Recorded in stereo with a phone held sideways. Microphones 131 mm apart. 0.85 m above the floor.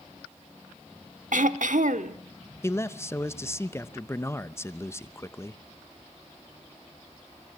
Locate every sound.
1.3 s throat clearing: 80° right, 1.0 m
2.6 s a man speaking: 20° left (ahead or behind), 0.8 m